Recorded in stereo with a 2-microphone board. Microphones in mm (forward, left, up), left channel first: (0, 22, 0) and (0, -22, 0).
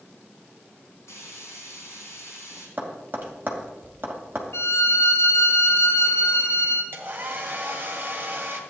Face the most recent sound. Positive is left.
turn(degrees=-45)  # may be behind; listen again after turning